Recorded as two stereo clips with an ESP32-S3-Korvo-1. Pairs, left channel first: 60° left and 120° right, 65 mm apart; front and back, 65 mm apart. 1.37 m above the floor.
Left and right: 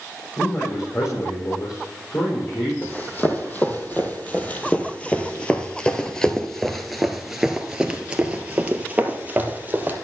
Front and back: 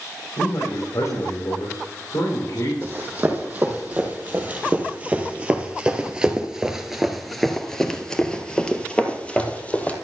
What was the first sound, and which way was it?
A man speaking, 25° left.